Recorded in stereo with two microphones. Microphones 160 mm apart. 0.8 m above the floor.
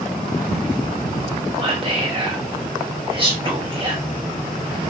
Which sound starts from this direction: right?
Whispering, at 1.6 s.